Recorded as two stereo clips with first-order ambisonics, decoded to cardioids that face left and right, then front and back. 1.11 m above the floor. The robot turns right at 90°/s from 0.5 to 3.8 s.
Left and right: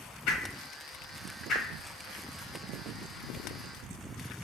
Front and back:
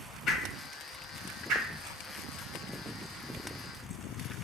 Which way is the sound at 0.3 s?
55° left.